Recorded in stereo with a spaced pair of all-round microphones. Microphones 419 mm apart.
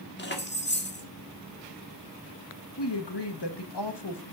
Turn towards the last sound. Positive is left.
turn(degrees=65)  # may be behind; listen again after turning